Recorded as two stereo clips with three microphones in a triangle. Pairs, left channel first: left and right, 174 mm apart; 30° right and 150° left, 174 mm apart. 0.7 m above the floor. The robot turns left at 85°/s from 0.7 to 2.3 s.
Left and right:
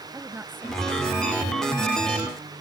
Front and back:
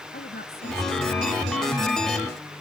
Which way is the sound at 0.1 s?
10° right.